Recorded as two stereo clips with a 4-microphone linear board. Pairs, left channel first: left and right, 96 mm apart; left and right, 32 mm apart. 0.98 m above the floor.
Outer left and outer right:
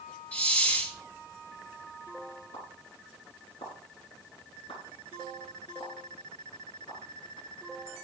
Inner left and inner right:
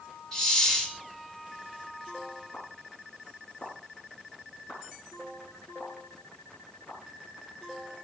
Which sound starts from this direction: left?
A pop, at 2.5 s.